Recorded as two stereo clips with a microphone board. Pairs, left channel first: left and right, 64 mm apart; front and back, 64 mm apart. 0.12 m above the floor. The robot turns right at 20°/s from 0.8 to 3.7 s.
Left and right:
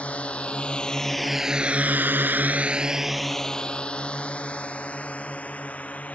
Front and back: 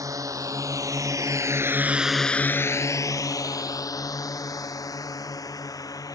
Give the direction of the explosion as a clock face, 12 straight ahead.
No explosion in this recording.